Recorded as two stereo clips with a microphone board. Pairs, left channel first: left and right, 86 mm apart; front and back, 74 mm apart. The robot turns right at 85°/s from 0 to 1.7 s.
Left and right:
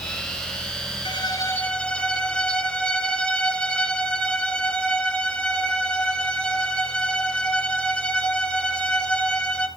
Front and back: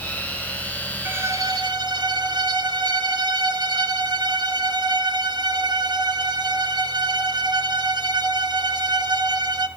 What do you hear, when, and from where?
1.1 s a violin: 115° left, 0.9 m; by 9.7 s 170° left, 0.9 m